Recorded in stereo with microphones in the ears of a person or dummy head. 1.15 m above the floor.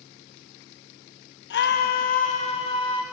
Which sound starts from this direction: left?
A scream, at 1.5 s.